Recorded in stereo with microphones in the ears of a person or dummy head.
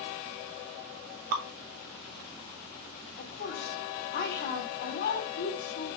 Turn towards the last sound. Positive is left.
turn(degrees=55)  # may be behind; listen again after turning